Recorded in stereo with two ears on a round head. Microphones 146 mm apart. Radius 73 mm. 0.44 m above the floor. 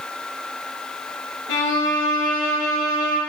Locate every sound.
1.5 s a violin: 80° left, 3 m